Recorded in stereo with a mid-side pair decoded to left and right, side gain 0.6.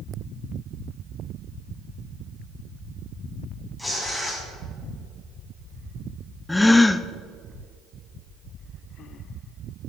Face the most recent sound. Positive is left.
turn(degrees=10)